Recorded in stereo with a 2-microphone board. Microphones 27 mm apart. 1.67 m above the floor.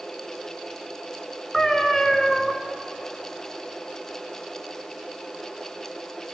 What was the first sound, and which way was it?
A cat meowing, 10° left (ahead or behind).